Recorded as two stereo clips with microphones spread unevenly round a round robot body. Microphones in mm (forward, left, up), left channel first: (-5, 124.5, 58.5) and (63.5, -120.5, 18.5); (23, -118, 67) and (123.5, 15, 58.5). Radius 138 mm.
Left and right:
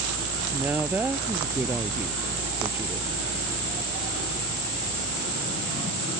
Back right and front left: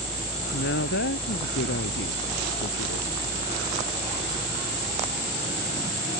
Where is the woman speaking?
160° right.